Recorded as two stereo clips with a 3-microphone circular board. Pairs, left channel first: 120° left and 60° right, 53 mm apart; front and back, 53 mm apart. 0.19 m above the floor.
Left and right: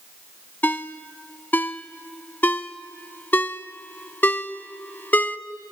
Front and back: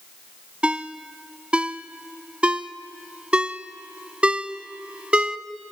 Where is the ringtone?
130° left, 0.6 m.